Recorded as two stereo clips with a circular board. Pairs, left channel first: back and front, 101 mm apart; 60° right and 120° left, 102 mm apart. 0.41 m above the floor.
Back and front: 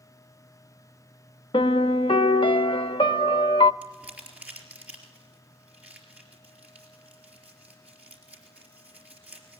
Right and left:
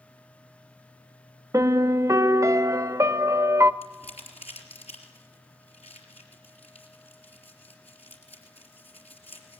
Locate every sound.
1.5 s a piano: 175° left, 0.5 m
3.8 s crumpling: 75° right, 4 m